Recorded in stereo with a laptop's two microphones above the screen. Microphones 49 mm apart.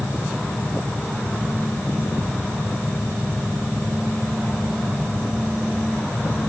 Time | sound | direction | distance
0.0 | a fan | 65° left (ahead or behind) | 6 m